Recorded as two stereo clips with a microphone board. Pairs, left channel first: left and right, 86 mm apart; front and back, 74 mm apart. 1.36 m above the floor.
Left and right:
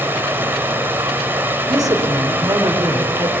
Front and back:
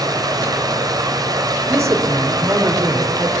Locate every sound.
0.0 s running water: 155° right, 3.5 m
1.7 s a woman speaking: 135° right, 4.5 m